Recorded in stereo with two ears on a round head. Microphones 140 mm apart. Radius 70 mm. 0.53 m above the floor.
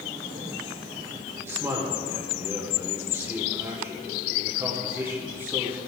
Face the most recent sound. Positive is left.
turn(degrees=-15)  # may be behind; listen again after turning